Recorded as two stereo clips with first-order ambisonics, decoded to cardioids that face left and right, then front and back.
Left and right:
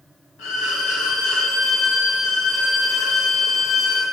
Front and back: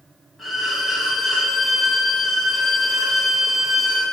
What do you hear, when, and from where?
0.4 s a violin: 95° left, 1.4 m